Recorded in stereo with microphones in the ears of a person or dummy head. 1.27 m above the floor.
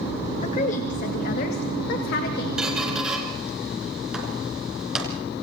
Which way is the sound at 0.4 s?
40° left (ahead or behind).